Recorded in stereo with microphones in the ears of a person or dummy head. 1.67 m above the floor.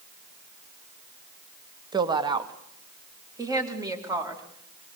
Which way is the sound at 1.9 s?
25° right (ahead or behind).